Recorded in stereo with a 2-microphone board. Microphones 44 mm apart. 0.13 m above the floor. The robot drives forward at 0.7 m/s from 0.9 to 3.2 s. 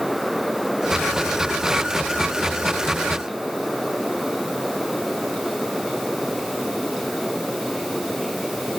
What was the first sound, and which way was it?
Only background noise.